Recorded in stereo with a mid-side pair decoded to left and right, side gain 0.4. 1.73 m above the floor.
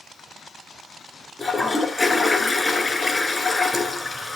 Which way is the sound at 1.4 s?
30° left.